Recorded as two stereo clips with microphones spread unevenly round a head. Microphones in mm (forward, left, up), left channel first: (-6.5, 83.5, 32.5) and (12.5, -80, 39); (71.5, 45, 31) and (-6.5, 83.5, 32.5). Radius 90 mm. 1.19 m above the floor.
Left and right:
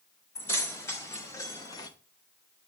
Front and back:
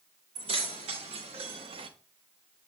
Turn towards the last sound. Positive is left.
turn(degrees=165)